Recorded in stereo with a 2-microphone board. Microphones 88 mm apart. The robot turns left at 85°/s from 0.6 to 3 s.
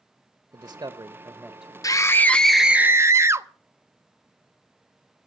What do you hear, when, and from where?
0.5 s a man speaking: 75° right, 0.9 m; by 1.7 s 175° right, 0.9 m
1.8 s a scream: 60° left, 0.6 m; by 3.5 s 40° right, 0.6 m